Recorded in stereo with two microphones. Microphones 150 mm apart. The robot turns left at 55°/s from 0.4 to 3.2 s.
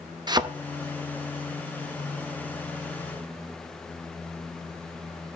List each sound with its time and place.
0.3 s a thud: 30° right (ahead or behind), 0.6 m